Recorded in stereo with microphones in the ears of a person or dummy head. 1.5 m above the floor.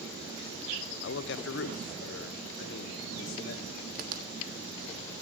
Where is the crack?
55° right (ahead or behind), 1.4 m.